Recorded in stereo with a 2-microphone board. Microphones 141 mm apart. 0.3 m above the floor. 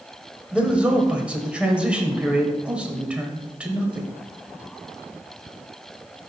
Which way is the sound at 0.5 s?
10° right (ahead or behind).